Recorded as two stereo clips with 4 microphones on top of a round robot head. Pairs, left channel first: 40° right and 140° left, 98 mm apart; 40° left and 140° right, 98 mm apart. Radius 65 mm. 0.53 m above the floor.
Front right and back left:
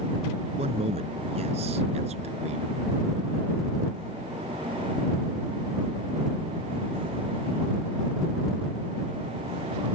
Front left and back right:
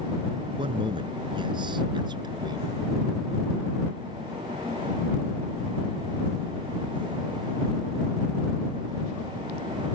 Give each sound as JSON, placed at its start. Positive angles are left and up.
{"t": 0.6, "sound": "a man speaking", "azimuth_deg": 175}